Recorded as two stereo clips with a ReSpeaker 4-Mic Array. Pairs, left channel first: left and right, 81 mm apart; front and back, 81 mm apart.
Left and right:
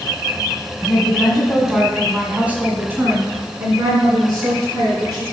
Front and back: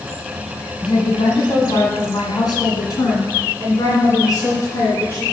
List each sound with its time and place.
0.8 s a woman speaking: 15° left, 2 m; by 5.2 s 50° right, 3.5 m